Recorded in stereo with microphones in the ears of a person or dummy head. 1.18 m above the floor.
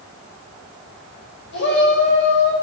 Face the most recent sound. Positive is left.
turn(degrees=70)  # may be behind; listen again after turning